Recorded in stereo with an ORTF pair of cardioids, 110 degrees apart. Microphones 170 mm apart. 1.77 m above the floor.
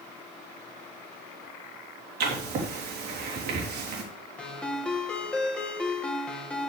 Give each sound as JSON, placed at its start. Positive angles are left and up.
{"t": 2.2, "sound": "writing", "azimuth_deg": -65, "distance_m": 3.5}
{"t": 4.4, "sound": "a ringtone", "azimuth_deg": 5, "distance_m": 2.5}